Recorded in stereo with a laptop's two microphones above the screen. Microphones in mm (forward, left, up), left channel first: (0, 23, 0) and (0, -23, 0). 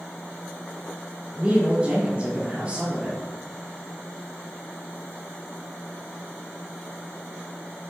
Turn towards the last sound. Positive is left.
turn(degrees=-25)  # may be behind; listen again after turning